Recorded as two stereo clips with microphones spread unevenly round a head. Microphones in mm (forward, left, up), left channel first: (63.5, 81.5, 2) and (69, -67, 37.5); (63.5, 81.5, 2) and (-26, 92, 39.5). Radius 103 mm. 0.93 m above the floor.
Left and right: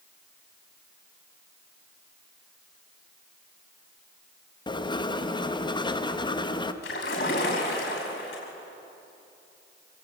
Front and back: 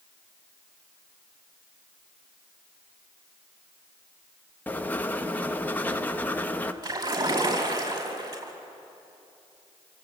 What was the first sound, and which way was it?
Writing, 45° left.